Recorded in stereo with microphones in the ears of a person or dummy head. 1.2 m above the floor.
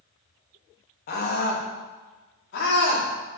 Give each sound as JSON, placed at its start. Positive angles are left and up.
{"t": 1.1, "sound": "a scream", "side_deg": 50, "distance_m": 1.8}